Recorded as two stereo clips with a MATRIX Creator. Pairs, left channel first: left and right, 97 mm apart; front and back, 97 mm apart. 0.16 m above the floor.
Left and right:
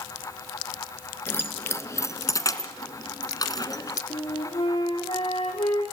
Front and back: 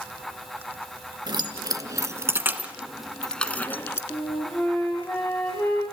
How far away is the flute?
About 6.5 m.